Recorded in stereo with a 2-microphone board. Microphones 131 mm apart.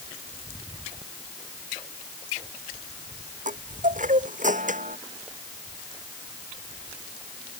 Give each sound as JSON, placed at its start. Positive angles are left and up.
{"t": 3.5, "sound": "a chime", "side_deg": -85}